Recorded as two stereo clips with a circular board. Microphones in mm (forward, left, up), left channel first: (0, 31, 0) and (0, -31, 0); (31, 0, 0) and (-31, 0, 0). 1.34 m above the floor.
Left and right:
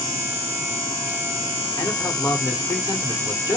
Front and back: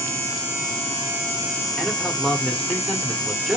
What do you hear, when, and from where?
1.8 s a man speaking: 85° left, 1.0 m